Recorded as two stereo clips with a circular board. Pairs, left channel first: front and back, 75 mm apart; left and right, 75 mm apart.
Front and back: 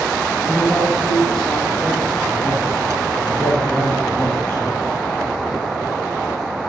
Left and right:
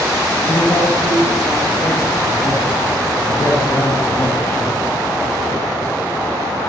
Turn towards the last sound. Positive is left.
turn(degrees=35)